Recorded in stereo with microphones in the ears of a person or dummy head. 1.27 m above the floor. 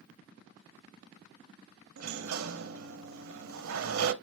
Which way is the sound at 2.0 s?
75° right (ahead or behind).